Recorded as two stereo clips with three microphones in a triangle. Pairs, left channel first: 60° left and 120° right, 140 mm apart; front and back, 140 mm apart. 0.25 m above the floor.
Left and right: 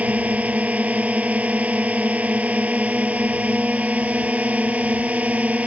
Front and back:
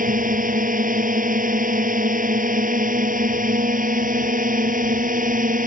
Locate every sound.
0.0 s a drone: 160° left